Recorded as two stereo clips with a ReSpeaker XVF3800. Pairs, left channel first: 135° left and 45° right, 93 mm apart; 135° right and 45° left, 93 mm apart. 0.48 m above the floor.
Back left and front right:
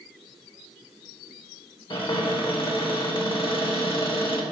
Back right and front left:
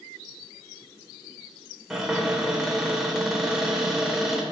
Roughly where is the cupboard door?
Behind left.